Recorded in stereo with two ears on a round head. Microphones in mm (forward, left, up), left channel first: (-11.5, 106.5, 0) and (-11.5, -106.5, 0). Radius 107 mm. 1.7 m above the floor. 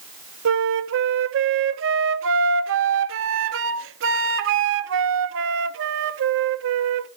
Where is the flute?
55° right (ahead or behind), 0.7 m.